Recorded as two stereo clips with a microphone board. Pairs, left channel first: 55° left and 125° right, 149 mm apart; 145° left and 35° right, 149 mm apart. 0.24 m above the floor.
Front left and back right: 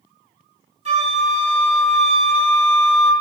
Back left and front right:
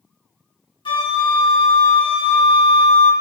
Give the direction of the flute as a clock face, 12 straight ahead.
5 o'clock.